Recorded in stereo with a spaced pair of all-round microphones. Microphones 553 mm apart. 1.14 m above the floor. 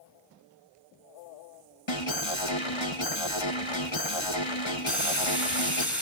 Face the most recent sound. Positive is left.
turn(degrees=0)  # may be behind; listen again after turning